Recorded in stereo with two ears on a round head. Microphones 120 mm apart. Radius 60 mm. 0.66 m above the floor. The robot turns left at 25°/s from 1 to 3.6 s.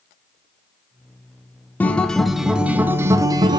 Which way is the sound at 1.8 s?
15° left.